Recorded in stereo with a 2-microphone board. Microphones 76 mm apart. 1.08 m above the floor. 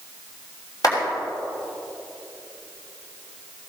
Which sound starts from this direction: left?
A clap, at 0.8 s.